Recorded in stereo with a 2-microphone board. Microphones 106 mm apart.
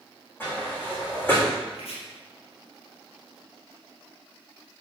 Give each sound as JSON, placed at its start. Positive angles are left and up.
{"t": 0.4, "sound": "a sliding door", "side_deg": 20, "distance_m": 3.5}
{"t": 1.7, "sound": "chopping", "side_deg": 70, "distance_m": 3.5}